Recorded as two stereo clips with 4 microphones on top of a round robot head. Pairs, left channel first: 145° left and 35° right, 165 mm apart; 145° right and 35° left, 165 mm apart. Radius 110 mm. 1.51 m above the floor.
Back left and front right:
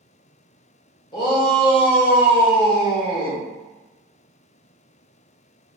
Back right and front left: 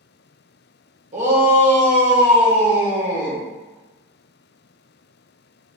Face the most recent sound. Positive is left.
turn(degrees=80)